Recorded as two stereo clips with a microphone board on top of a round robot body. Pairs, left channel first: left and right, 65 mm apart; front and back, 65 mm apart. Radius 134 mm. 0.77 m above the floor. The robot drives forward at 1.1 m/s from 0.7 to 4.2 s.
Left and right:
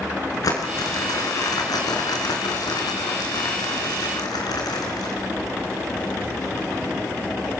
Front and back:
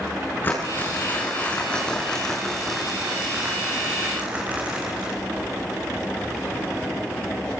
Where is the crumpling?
60° left, 5 m; by 5.2 s 110° left, 4.5 m.